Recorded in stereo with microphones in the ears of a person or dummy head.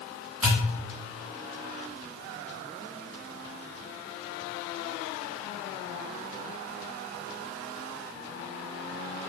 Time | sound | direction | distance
0.4 | a pop | 10° left (ahead or behind) | 1.9 m